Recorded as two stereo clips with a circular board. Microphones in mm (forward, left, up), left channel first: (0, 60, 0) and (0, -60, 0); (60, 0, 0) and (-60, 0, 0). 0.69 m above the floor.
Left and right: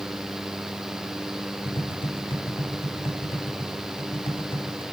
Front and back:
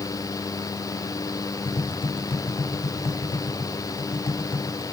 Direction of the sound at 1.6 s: 45° left.